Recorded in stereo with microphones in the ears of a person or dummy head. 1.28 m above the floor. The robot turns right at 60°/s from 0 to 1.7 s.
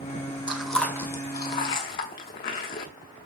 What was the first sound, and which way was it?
Chewing, 5° right (ahead or behind).